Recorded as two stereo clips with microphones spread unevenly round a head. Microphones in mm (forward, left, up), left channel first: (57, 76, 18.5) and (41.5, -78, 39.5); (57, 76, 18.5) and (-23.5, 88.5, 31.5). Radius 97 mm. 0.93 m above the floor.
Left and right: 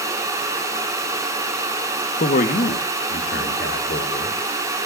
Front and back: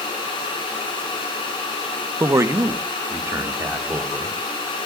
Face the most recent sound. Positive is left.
turn(degrees=115)